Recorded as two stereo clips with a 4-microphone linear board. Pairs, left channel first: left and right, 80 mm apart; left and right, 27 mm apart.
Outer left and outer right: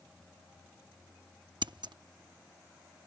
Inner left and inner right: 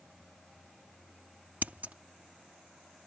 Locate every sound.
1.6 s scissors: 70° right (ahead or behind)